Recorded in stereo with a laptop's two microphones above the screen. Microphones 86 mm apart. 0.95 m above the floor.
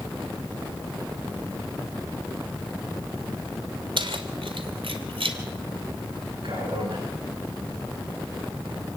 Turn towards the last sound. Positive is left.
turn(degrees=-70)  # may be behind; listen again after turning